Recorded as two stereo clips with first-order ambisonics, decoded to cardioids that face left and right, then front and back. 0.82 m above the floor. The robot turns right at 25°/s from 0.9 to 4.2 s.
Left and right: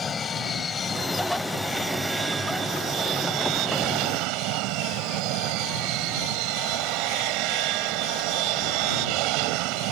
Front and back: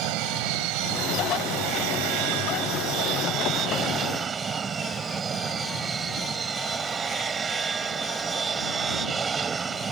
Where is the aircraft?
160° left; by 9.9 s 110° right.